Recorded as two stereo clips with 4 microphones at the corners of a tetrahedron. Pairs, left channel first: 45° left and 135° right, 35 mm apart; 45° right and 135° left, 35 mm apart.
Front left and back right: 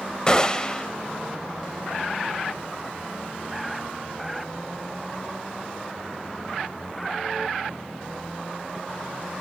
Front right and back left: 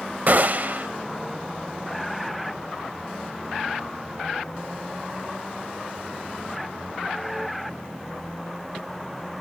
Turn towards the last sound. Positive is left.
turn(degrees=110)